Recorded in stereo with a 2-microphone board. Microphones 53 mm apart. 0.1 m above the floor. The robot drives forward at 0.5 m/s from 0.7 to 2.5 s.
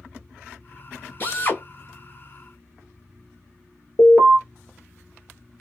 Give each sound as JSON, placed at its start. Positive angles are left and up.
{"t": 1.2, "sound": "a drill", "side_deg": 35, "distance_m": 1.2}
{"t": 4.0, "sound": "an alarm", "side_deg": 35, "distance_m": 1.2}